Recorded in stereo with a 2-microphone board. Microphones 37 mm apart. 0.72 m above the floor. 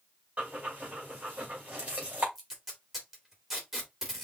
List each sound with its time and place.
0.4 s breathing: 40° right (ahead or behind), 3 m
2.4 s tape being pulled: 10° right (ahead or behind), 2.5 m